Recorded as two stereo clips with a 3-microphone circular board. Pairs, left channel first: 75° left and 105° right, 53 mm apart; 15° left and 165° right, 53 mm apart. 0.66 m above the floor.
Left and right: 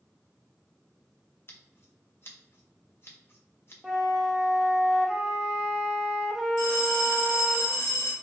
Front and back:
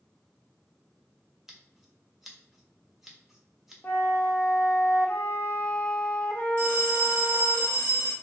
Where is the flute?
30° right, 0.6 m.